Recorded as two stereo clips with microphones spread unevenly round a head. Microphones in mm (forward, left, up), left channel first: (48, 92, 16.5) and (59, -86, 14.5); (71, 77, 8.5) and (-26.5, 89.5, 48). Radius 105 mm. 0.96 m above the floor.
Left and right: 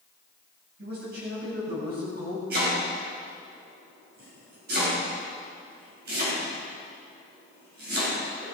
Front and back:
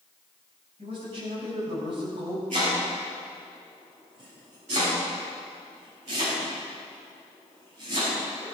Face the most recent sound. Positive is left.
turn(degrees=-135)